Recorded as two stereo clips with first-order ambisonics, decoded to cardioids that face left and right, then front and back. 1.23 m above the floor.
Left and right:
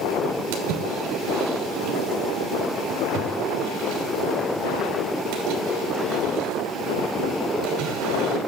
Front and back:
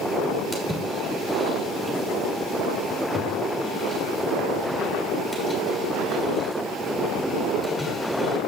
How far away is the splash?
About 3 m.